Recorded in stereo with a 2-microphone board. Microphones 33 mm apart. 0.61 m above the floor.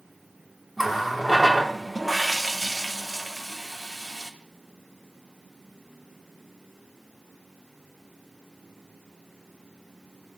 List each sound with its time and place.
0.8 s a running tap: 5° right (ahead or behind), 0.6 m